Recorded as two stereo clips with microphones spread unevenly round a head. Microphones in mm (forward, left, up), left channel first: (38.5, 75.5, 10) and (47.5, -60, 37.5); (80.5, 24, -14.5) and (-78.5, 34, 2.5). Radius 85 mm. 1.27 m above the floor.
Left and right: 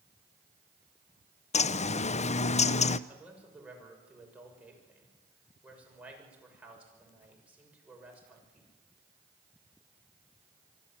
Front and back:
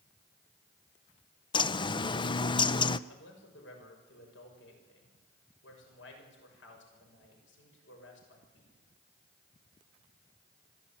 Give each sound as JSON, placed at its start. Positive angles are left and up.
{"t": 1.5, "sound": "a bird", "azimuth_deg": 60, "distance_m": 0.6}
{"t": 3.1, "sound": "a man speaking", "azimuth_deg": -5, "distance_m": 6.5}